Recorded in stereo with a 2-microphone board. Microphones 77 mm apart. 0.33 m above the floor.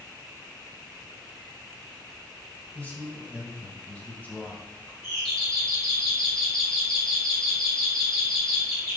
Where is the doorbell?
10° left (ahead or behind), 3.5 m.